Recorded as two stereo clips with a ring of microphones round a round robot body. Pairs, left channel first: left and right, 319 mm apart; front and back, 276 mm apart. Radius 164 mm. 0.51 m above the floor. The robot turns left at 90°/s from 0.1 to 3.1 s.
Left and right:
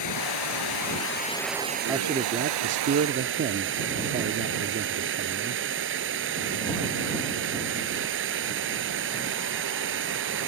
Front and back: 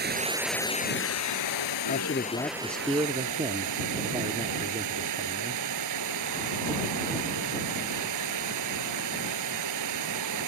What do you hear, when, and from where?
0.0 s running water: 125° left; by 10.5 s 145° right
1.9 s a man speaking: 10° right; by 5.6 s 120° right